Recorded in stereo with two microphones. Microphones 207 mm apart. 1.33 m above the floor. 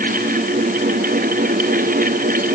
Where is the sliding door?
No sliding door in this recording.